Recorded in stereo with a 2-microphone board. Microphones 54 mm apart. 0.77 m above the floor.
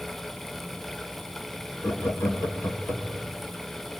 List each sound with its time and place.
1.8 s laughter: 65° left (ahead or behind), 2 m; by 3.3 s 30° left (ahead or behind), 2.5 m